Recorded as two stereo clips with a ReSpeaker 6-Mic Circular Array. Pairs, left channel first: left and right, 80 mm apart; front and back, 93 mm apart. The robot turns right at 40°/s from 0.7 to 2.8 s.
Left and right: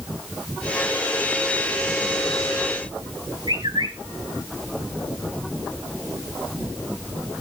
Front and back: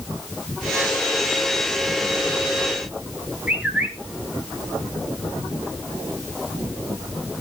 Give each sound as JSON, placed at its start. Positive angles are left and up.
{"t": 3.5, "sound": "a bird", "azimuth_deg": -105, "distance_m": 3.0}